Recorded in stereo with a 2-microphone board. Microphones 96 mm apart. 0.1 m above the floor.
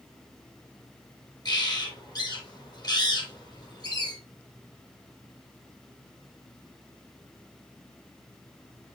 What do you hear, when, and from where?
1.4 s a bird: 45° left (ahead or behind), 2.5 m